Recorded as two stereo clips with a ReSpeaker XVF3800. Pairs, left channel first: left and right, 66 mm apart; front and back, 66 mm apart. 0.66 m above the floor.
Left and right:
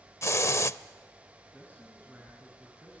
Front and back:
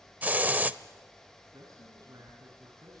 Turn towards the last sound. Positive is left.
turn(degrees=150)